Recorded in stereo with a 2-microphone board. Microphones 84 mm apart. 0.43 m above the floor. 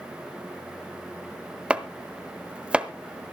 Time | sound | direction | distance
1.7 | chopping | 15° right (ahead or behind) | 0.9 m